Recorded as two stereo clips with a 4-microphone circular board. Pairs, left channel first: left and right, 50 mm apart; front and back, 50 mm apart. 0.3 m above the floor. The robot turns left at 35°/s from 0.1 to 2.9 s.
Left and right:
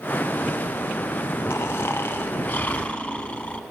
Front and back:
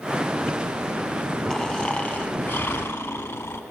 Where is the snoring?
80° left, 0.8 m; by 3.6 s 30° left, 0.8 m.